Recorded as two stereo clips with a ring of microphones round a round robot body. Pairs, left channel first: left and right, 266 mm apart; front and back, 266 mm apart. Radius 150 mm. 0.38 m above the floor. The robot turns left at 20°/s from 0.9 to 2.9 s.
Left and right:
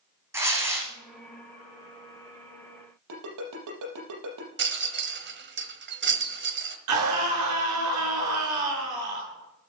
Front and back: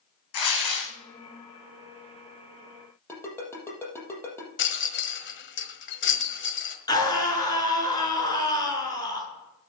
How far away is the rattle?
About 1.4 m.